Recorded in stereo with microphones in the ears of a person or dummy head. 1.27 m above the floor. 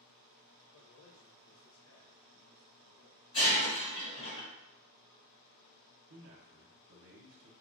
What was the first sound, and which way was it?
A man speaking, 75° left (ahead or behind).